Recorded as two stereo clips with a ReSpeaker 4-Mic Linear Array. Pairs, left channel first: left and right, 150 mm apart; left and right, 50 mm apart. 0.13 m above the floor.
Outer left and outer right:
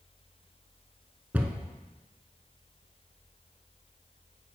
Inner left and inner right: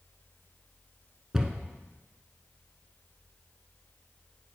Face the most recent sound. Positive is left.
turn(degrees=-10)  # may be behind; listen again after turning